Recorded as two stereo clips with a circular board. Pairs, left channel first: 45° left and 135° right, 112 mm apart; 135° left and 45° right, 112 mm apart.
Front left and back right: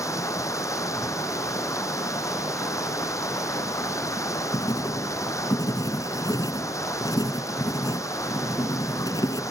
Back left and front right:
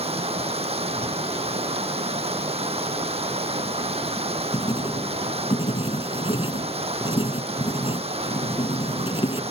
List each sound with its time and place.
0.0 s running water: 20° right
4.5 s writing: 100° left